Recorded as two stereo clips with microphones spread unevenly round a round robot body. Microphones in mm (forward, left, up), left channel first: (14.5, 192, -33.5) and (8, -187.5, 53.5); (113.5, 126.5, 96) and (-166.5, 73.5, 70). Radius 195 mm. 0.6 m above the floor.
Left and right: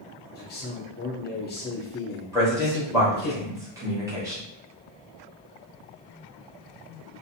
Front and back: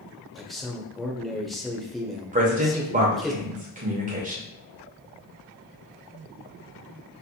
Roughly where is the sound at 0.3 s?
Left.